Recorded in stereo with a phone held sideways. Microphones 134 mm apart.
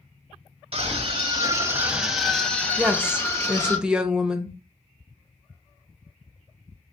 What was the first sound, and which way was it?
A scream, 45° right (ahead or behind).